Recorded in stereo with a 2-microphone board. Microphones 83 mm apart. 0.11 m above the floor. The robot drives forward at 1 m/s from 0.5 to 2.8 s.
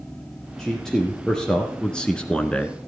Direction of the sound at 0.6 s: 5° left (ahead or behind).